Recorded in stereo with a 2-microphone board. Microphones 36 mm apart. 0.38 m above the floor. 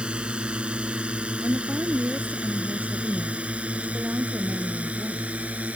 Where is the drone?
30° right (ahead or behind); by 5.8 s 45° right (ahead or behind).